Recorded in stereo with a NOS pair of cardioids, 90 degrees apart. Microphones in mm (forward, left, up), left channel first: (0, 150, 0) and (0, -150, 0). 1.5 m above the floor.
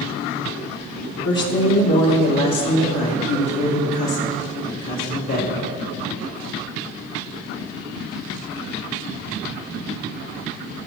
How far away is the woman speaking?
About 1.9 m.